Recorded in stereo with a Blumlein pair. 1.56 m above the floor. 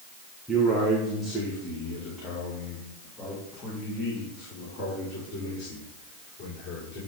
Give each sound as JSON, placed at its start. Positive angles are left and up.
{"t": 0.5, "sound": "a man speaking", "azimuth_deg": -5, "distance_m": 1.7}